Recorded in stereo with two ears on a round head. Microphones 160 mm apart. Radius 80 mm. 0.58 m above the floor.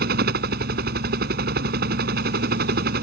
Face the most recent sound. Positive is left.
turn(degrees=-55)  # may be behind; listen again after turning